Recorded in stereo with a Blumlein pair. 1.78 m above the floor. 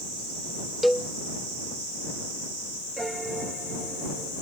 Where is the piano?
10° right.